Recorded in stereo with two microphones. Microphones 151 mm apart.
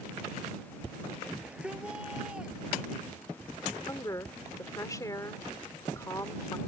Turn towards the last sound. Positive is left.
turn(degrees=25)  # may be behind; listen again after turning